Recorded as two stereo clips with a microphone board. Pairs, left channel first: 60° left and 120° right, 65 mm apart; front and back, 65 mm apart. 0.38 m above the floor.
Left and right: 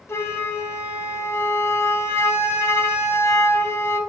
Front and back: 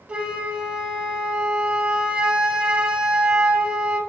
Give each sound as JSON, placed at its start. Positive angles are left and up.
{"t": 0.1, "sound": "a flute", "azimuth_deg": 110, "distance_m": 0.5}